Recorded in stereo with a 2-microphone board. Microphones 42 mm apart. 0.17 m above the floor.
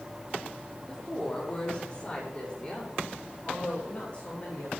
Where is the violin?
No violin in this recording.